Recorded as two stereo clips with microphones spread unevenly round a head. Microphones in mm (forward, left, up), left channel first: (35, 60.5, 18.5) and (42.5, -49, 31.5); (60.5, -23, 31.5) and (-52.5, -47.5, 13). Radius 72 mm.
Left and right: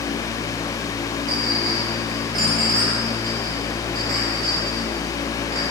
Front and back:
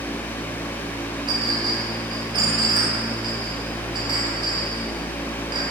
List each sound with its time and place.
1.3 s a clink: 115° right, 3.5 m